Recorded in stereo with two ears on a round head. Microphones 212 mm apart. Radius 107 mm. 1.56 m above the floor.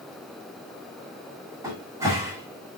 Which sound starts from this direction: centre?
A cupboard door, at 1.6 s.